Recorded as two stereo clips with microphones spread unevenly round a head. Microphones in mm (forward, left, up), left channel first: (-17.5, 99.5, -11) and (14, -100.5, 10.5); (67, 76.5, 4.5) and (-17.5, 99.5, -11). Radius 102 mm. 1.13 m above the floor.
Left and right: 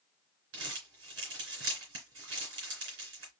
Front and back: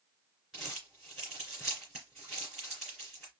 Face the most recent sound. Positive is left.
turn(degrees=-105)